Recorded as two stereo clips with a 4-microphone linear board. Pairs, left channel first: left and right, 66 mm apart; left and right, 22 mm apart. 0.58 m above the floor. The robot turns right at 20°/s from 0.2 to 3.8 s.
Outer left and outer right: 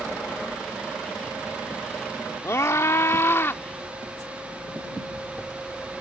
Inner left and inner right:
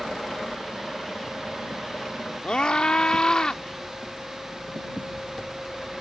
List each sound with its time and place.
2.4 s a scream: 45° left (ahead or behind); by 3.6 s 35° left (ahead or behind)